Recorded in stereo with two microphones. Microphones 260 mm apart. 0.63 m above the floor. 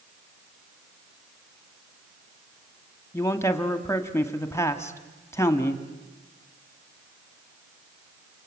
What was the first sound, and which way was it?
A man speaking, 10° left (ahead or behind).